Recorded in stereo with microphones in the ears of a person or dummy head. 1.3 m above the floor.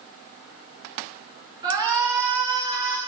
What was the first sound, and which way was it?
A shout, 25° right (ahead or behind).